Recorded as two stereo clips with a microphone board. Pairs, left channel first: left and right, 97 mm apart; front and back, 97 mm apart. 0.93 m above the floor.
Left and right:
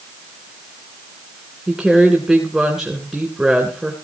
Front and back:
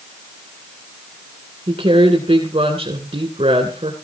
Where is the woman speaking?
170° right, 3 m.